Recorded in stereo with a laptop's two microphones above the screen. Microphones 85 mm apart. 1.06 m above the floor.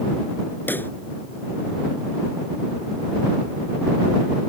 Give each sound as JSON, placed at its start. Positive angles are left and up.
{"t": 0.7, "sound": "a pop", "side_deg": 20}